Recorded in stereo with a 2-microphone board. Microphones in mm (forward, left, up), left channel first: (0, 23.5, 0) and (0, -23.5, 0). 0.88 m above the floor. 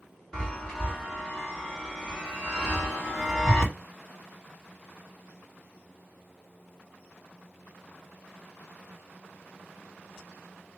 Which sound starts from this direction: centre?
A chime, at 0.3 s.